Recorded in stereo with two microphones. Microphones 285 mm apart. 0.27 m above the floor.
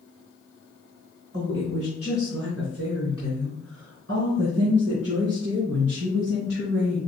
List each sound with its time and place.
1.3 s a woman speaking: 45° right (ahead or behind), 1.9 m; by 7.0 s 60° right (ahead or behind), 5 m